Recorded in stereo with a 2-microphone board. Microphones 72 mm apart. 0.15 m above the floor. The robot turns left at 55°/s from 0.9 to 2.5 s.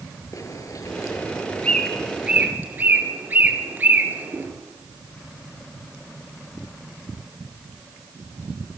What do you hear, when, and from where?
0.3 s a bird: 50° left (ahead or behind), 3 m; by 4.5 s 25° right (ahead or behind), 3 m